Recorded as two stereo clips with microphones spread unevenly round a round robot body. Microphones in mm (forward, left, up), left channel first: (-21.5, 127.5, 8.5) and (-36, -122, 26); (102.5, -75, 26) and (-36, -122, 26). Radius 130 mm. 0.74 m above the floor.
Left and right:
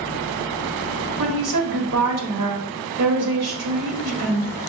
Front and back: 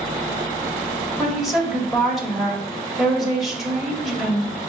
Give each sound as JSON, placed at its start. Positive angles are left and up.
{"t": 1.2, "sound": "a woman speaking", "azimuth_deg": -70, "distance_m": 1.6}